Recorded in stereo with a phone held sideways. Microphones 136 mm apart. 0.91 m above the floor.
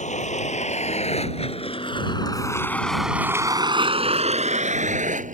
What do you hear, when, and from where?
0.0 s a vehicle: 65° left (ahead or behind); by 5.3 s 70° right (ahead or behind)